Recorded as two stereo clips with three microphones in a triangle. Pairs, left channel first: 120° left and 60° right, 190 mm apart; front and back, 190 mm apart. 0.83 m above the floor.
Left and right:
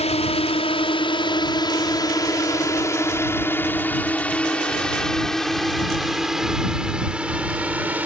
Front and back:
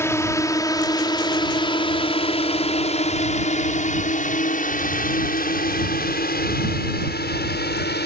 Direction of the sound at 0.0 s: 75° left.